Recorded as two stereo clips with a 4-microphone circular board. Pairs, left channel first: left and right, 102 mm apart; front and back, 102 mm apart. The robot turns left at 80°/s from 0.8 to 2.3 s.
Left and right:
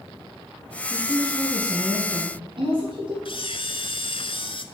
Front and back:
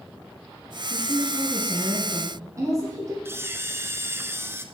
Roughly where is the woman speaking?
Ahead.